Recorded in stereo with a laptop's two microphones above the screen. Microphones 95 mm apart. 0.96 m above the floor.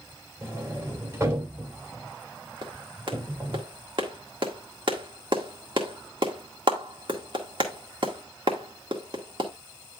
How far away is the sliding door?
About 3.5 m.